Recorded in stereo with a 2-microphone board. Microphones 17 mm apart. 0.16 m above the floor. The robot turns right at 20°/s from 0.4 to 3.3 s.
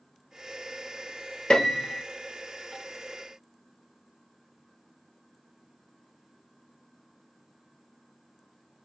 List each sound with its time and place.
1.5 s a piano: 60° left (ahead or behind), 0.8 m; by 2.0 s 50° left (ahead or behind), 0.8 m